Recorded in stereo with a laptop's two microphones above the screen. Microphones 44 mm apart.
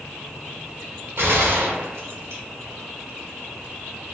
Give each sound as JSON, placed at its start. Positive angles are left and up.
{"t": 1.2, "sound": "a gunshot", "side_deg": -75, "distance_m": 1.4}